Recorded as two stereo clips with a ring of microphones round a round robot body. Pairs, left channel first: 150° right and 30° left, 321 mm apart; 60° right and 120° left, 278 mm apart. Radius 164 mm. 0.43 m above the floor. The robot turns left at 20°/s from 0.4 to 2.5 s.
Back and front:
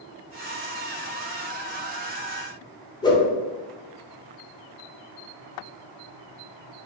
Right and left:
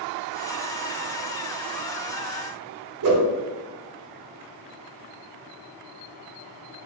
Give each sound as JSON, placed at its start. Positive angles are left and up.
{"t": 3.0, "sound": "a whoosh", "azimuth_deg": 135, "distance_m": 0.6}